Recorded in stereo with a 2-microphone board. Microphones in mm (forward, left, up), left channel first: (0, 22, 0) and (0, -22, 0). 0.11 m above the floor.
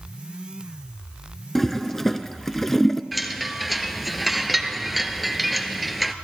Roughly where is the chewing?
I don't hear chewing.